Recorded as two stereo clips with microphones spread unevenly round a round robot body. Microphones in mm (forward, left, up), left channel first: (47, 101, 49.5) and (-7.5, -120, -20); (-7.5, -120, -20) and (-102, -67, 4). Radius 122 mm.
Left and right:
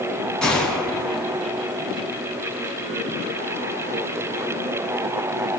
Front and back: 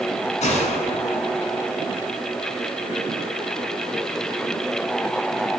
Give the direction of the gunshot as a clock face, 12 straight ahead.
12 o'clock.